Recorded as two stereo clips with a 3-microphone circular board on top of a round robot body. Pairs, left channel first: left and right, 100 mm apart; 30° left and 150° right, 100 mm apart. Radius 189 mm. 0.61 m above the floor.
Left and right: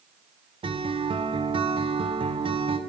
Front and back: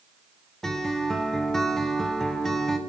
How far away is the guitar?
About 1.4 m.